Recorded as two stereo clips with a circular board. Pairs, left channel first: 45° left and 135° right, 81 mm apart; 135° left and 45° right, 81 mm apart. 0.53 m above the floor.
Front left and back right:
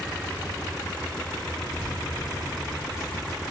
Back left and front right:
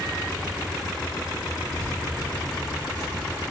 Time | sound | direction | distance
1.7 | keys jangling | 10° right | 5.5 m